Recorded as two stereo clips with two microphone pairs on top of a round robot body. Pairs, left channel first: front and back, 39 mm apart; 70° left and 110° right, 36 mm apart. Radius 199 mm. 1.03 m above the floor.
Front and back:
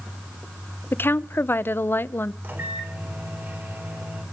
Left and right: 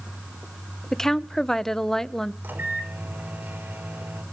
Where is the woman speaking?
10° right, 1.1 m.